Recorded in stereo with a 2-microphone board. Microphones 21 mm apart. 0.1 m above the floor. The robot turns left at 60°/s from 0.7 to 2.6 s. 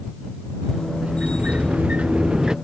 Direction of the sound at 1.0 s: 55° right.